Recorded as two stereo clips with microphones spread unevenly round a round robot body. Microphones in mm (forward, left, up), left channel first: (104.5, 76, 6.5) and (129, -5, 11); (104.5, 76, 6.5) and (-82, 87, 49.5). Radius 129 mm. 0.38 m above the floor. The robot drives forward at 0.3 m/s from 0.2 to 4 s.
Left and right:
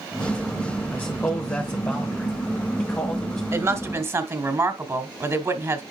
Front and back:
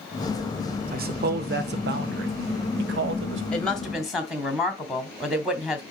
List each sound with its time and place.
0.9 s a man speaking: 165° left, 0.9 m; by 3.4 s 175° left, 1.5 m
3.5 s a woman speaking: 60° right, 1.3 m; by 5.8 s 75° right, 1.3 m